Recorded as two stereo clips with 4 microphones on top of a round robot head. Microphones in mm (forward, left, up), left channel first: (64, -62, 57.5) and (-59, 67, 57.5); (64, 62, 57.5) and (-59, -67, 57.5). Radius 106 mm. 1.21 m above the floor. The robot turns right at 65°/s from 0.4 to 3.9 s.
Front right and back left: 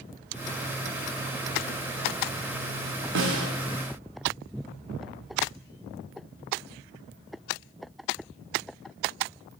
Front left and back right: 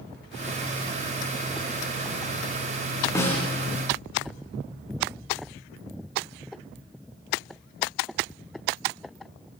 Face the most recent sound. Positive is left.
turn(degrees=165)